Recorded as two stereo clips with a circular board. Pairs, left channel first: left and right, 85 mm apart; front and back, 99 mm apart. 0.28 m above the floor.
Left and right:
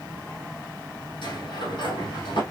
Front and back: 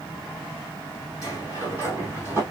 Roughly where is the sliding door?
Left.